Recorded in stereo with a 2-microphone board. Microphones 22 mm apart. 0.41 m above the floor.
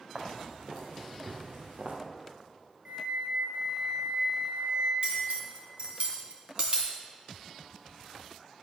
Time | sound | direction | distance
0.1 | footsteps | 50° right (ahead or behind) | 2.5 m
2.9 | a flute | 60° right (ahead or behind) | 3.5 m
5.0 | cutlery clinking | 50° right (ahead or behind) | 2.5 m